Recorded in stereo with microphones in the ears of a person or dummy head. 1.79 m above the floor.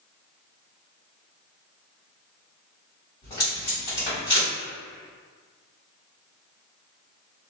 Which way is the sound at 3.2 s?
25° left (ahead or behind).